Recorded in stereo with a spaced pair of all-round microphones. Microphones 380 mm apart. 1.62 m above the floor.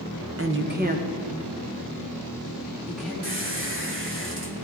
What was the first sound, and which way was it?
A woman speaking, 35° right (ahead or behind).